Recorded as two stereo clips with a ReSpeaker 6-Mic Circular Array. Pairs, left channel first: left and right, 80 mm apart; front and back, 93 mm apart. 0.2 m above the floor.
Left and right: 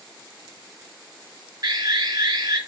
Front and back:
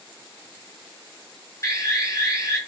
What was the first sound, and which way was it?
An alarm, 55° right.